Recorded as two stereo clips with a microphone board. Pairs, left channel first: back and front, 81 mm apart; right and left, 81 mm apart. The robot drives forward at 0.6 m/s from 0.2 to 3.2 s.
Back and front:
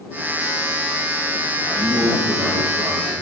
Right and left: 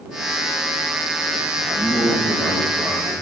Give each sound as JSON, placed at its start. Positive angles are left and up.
{"t": 1.6, "sound": "a man speaking", "azimuth_deg": 115, "distance_m": 2.5}